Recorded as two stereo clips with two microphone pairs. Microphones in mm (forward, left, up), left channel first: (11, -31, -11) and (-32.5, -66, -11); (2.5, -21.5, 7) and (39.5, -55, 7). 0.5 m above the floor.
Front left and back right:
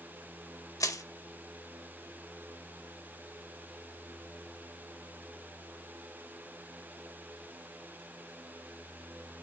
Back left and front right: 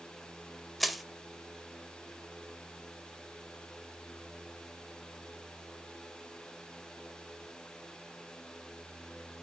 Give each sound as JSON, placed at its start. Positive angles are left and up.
{"t": 0.8, "sound": "crushing", "azimuth_deg": 45, "distance_m": 0.6}